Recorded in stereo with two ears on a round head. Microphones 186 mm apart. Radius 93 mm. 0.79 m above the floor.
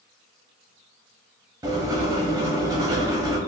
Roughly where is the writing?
Centre.